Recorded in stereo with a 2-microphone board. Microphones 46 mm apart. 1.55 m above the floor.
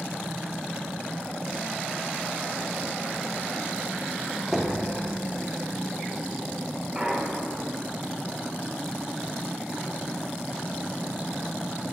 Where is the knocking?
10° right (ahead or behind), 0.6 m.